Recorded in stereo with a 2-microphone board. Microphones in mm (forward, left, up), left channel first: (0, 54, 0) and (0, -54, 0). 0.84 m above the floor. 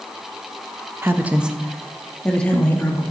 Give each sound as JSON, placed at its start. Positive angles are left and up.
{"t": 1.0, "sound": "a woman speaking", "side_deg": -25, "distance_m": 0.6}